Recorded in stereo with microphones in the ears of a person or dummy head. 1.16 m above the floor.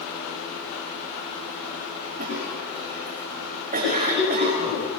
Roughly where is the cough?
Right.